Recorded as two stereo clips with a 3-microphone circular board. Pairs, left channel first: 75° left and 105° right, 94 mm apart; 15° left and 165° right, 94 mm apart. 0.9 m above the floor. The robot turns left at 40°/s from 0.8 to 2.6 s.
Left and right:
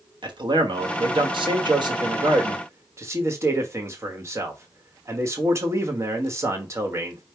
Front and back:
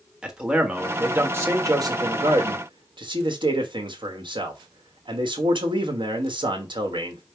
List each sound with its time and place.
0.2 s a man speaking: 85° right, 1.1 m; by 7.2 s 160° right, 1.1 m